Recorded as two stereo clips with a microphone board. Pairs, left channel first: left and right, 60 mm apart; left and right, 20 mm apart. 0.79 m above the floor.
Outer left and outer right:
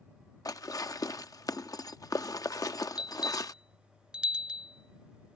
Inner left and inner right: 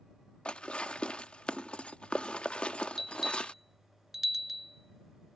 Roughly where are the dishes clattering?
Left.